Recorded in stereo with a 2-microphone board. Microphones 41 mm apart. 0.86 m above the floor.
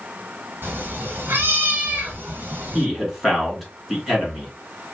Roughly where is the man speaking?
Centre.